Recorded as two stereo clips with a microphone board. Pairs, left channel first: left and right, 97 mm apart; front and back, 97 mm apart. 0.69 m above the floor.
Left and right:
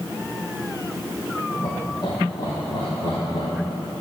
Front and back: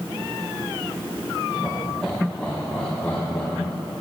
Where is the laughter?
90° left, 1.1 m; by 3.8 s 60° left, 2 m.